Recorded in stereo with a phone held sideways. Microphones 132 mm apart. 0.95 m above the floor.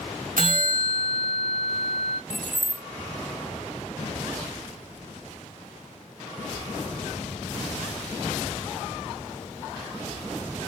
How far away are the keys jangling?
About 0.6 m.